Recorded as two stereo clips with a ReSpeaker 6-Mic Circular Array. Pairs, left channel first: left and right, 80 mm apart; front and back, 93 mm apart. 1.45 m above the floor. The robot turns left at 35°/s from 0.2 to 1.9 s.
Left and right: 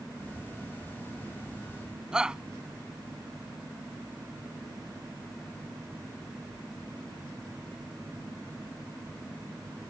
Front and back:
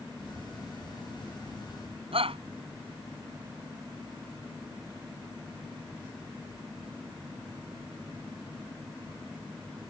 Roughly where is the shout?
Behind.